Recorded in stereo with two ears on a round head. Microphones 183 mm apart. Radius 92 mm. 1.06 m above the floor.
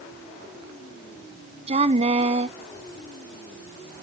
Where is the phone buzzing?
I don't hear a phone buzzing.